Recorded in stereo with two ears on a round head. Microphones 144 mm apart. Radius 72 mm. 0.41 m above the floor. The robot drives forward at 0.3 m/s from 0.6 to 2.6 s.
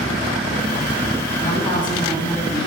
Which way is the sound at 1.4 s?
30° left (ahead or behind).